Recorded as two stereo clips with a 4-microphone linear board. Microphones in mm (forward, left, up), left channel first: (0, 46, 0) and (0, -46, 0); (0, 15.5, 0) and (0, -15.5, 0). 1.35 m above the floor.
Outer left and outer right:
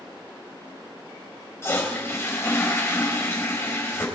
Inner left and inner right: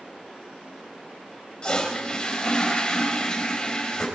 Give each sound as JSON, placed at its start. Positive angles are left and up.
{"t": 1.6, "sound": "a toilet flushing", "side_deg": 30, "distance_m": 3.5}